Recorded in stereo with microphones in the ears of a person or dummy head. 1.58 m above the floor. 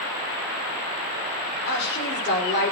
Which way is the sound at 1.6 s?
55° left (ahead or behind).